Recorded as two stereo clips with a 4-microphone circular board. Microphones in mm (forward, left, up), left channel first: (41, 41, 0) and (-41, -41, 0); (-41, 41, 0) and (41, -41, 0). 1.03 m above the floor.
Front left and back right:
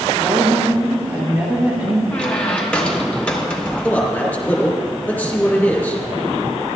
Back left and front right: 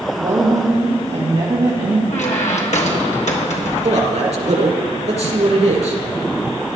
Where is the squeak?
125° left, 1.4 m.